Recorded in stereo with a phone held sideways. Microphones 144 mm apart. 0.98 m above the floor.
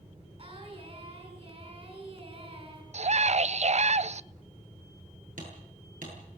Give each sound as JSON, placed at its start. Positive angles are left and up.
{"t": 0.4, "sound": "singing", "side_deg": -45, "distance_m": 6.5}
{"t": 2.9, "sound": "a scream", "side_deg": -55, "distance_m": 0.5}
{"t": 5.4, "sound": "hammering", "side_deg": -80, "distance_m": 9.0}